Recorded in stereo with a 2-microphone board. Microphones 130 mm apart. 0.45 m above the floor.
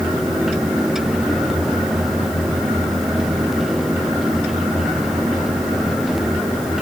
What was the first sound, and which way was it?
Only background noise.